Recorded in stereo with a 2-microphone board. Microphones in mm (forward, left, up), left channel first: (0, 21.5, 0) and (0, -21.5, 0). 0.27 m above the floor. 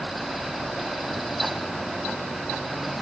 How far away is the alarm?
No alarm in this recording.